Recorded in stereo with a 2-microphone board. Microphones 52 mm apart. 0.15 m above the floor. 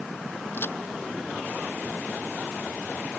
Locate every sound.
0.5 s a crack: 45° left (ahead or behind)